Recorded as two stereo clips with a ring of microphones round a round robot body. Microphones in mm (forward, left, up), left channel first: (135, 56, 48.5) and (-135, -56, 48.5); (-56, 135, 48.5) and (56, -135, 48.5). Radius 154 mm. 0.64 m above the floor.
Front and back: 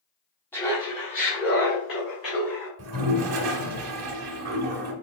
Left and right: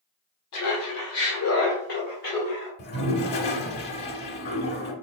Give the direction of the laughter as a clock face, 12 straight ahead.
9 o'clock.